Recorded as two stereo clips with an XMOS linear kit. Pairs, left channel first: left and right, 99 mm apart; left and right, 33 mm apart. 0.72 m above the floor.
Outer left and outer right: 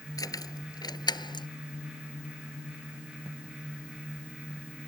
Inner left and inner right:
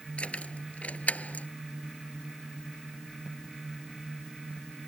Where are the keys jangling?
35° left (ahead or behind); by 1.5 s 50° left (ahead or behind).